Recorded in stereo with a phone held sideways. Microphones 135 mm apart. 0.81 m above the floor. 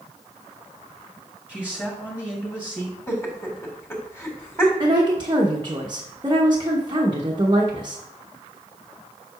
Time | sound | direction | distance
1.5 | a man speaking | 10° left (ahead or behind) | 2 m
3.1 | laughter | 15° left (ahead or behind) | 2.5 m
4.8 | a woman speaking | 35° right (ahead or behind) | 1.0 m